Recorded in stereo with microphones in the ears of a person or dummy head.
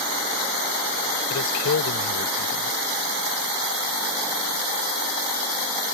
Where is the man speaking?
75° left (ahead or behind).